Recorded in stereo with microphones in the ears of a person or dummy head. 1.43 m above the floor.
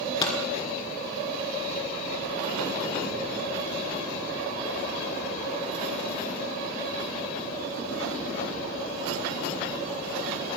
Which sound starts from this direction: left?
A pop, at 0.2 s.